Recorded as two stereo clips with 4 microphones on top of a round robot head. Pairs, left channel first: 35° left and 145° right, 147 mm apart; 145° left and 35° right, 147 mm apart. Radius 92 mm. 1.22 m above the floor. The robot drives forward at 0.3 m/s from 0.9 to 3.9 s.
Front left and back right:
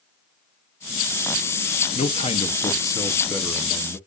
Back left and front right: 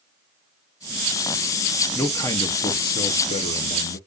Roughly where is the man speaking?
Left.